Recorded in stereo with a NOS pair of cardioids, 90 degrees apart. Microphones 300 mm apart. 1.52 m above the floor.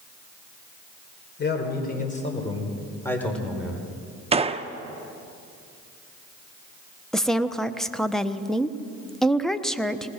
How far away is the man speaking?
About 4.5 m.